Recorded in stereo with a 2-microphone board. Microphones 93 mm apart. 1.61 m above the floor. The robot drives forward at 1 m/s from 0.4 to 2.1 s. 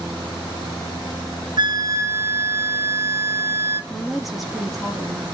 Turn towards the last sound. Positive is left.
turn(degrees=0)  # may be behind; listen again after turning